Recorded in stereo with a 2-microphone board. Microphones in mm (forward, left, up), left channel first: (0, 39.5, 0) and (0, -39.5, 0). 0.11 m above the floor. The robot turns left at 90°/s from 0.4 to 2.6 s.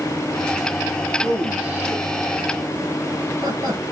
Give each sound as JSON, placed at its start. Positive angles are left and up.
{"t": 1.2, "sound": "a man speaking", "side_deg": 10, "distance_m": 2.0}